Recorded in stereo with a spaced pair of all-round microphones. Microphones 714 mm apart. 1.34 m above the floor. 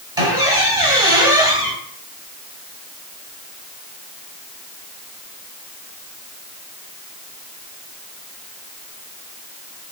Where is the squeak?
5° right (ahead or behind), 1.7 m.